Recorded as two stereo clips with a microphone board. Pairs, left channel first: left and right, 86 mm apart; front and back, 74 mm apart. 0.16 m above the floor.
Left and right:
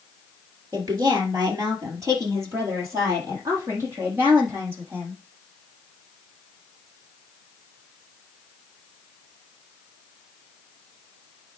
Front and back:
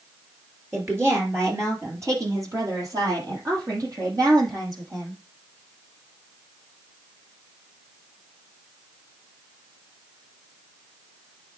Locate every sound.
0.7 s a woman speaking: 125° right, 3 m; by 5.2 s 150° right, 7 m